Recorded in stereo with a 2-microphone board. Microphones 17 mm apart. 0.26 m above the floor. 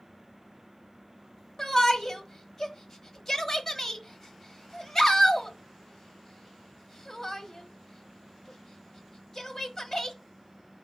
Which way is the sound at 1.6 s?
25° left (ahead or behind).